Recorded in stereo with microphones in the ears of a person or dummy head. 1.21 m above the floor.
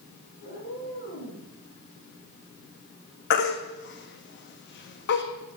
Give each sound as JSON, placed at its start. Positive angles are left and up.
{"t": 0.4, "sound": "a cat meowing", "side_deg": 55, "distance_m": 5.0}
{"t": 3.3, "sound": "a baby crying", "side_deg": 55, "distance_m": 1.3}